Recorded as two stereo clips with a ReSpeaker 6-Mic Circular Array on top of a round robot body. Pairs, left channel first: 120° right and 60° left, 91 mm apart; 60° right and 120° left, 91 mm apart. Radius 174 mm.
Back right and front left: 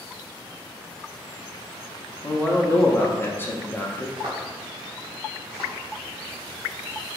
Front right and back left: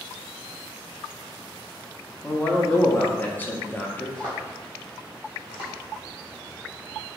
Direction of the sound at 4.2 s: 20° left.